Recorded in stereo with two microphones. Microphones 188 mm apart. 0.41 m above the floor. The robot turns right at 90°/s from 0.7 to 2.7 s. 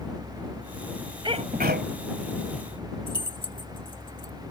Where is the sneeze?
150° right; by 1.9 s 95° right.